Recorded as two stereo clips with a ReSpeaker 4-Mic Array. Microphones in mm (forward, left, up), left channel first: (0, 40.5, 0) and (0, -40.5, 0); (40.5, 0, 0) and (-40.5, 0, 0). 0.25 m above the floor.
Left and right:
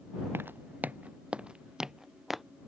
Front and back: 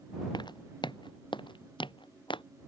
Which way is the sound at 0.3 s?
25° right.